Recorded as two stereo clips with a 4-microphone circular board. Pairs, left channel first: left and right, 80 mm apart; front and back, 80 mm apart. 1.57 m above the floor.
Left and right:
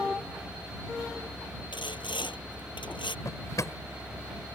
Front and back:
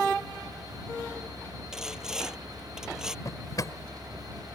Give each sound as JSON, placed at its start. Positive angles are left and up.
{"t": 1.7, "sound": "sawing", "azimuth_deg": 100}
{"t": 3.2, "sound": "a drawer", "azimuth_deg": 45}